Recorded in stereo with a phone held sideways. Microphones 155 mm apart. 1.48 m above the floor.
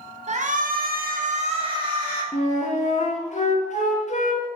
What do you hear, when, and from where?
0.3 s a shout: 50° right (ahead or behind), 0.7 m; by 2.2 s 25° right (ahead or behind), 1.0 m
2.3 s a flute: 55° left (ahead or behind), 0.6 m